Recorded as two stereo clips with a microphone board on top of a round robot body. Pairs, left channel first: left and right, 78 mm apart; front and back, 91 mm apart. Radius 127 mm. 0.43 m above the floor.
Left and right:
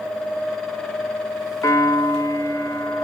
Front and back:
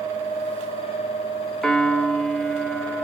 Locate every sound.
1.6 s a piano: 75° left, 1.2 m